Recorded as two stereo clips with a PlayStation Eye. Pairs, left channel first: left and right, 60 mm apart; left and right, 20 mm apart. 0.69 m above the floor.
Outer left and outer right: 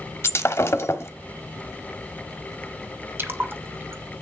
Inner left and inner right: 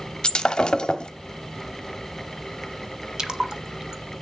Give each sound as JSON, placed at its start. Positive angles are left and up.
{"t": 0.2, "sound": "breaking glass", "side_deg": 45, "distance_m": 1.0}
{"t": 3.2, "sound": "a splash", "side_deg": -35, "distance_m": 0.9}